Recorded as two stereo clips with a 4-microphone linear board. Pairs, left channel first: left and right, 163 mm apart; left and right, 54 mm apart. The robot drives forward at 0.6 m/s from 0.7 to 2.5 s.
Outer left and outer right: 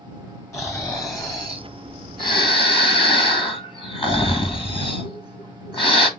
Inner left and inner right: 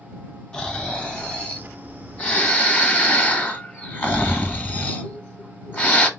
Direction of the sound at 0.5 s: 20° left (ahead or behind).